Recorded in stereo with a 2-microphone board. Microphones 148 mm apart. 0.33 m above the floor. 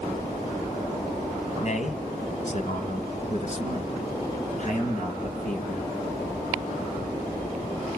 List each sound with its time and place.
1.6 s a man speaking: 55° left (ahead or behind), 1.9 m